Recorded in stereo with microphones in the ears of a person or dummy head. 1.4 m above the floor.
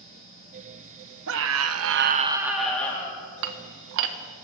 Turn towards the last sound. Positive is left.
turn(degrees=-60)  # may be behind; listen again after turning